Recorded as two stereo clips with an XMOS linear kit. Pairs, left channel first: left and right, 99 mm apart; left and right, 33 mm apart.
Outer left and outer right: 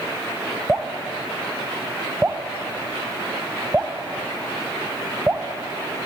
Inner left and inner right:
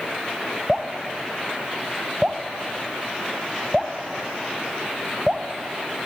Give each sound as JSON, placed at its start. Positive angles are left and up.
{"t": 0.7, "sound": "dripping", "side_deg": -10, "distance_m": 0.9}